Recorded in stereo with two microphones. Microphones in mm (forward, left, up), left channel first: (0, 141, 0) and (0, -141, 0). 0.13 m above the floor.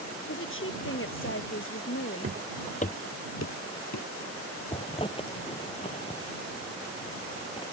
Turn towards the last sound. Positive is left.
turn(degrees=20)  # may be behind; listen again after turning